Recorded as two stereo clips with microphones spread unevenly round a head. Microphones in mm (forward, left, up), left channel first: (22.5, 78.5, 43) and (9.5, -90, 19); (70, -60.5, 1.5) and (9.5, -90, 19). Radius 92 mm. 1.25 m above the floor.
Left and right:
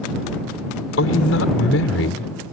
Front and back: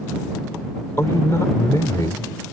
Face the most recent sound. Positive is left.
turn(degrees=100)